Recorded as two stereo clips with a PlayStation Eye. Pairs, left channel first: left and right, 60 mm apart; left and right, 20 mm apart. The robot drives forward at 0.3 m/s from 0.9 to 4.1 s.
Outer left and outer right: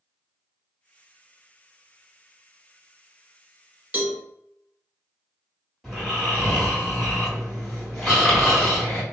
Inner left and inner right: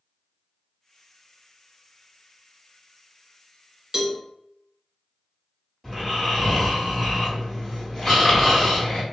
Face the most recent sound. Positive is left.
turn(degrees=0)  # may be behind; listen again after turning